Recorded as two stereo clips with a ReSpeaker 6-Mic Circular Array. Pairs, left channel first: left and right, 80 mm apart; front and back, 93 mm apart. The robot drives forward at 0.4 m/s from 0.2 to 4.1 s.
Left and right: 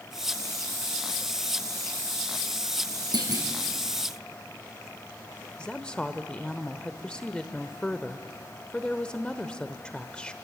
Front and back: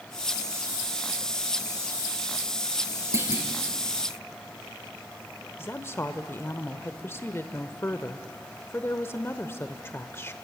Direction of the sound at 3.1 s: 120° right.